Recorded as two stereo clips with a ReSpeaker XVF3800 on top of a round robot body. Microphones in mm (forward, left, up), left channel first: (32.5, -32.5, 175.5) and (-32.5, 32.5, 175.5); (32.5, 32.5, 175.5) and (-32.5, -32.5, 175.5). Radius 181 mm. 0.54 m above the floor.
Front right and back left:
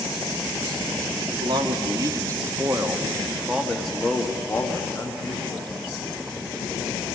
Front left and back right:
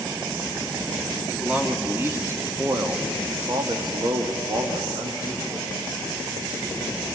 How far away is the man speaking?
About 2.0 m.